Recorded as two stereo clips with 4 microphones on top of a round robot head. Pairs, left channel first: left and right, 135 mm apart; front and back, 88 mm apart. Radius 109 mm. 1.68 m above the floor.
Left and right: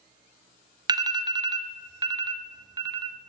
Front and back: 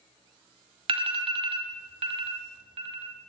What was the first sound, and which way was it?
An alarm, 155° right.